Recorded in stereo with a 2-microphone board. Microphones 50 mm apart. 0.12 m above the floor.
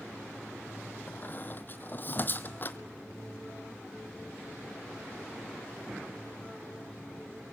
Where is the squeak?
40° left (ahead or behind), 0.7 m.